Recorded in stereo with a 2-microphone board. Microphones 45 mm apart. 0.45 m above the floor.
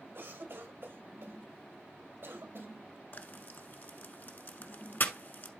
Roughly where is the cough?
Right.